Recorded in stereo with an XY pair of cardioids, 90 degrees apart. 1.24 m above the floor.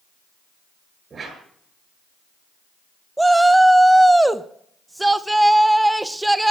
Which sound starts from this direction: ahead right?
A whoosh, at 1.1 s.